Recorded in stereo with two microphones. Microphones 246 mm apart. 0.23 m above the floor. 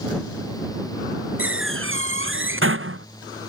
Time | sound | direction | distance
1.4 | a door slam | 55° right (ahead or behind) | ?